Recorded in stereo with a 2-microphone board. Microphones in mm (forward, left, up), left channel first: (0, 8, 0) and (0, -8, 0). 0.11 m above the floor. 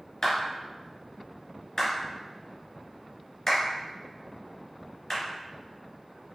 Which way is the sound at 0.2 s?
35° left (ahead or behind).